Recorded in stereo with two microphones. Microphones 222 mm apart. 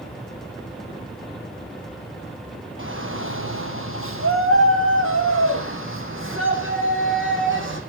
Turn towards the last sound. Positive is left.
turn(degrees=-65)  # may be behind; listen again after turning